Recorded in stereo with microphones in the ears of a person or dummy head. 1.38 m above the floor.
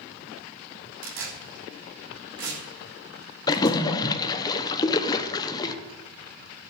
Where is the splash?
20° left (ahead or behind), 0.9 m.